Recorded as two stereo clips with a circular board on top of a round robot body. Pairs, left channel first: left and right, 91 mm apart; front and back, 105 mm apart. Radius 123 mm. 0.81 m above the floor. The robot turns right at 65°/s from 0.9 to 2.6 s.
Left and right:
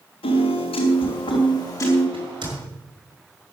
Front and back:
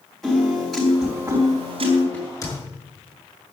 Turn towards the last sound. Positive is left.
turn(degrees=-45)